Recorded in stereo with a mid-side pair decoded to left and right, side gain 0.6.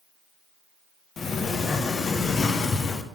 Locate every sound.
1.2 s a sliding door: 35° left, 0.7 m